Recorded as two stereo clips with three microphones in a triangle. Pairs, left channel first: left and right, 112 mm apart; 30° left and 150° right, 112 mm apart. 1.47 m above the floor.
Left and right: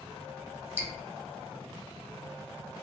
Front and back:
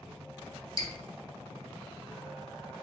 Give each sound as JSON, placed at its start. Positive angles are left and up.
{"t": 0.8, "sound": "dripping", "azimuth_deg": -20, "distance_m": 0.5}